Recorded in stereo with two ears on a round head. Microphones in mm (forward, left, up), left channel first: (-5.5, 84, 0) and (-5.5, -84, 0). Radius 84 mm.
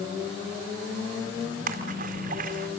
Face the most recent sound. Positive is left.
turn(degrees=-50)  # may be behind; listen again after turning